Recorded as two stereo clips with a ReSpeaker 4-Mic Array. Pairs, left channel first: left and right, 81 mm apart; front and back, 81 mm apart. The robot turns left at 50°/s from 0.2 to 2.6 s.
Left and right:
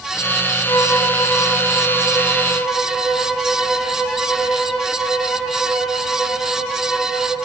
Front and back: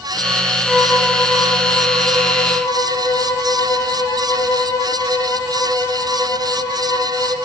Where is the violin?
105° left, 0.8 m; by 7.4 s 5° left, 0.8 m.